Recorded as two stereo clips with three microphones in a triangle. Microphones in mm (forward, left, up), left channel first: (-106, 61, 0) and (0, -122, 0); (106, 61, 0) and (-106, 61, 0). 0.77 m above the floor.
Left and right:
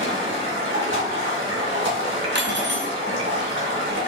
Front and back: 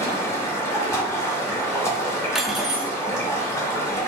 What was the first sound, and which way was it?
Running water, 75° right.